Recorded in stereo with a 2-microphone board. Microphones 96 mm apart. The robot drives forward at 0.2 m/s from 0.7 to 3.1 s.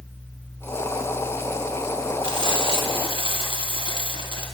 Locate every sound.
2.2 s frying: 60° right (ahead or behind), 2.5 m; by 4.5 s 55° right (ahead or behind), 2.5 m